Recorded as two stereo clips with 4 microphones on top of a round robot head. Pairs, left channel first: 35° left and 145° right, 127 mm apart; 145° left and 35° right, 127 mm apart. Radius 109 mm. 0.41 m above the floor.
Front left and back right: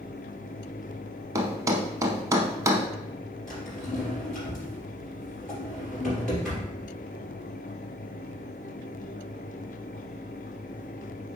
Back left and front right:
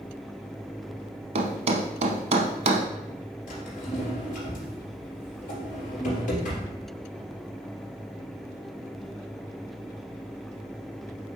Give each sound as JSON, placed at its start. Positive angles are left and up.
{"t": 1.4, "sound": "a thud", "azimuth_deg": -75, "distance_m": 0.7}
{"t": 3.5, "sound": "a drawer", "azimuth_deg": 120, "distance_m": 3.0}